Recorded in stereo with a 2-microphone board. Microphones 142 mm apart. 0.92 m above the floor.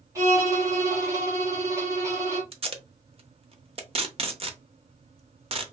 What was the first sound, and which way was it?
A violin, 20° right (ahead or behind).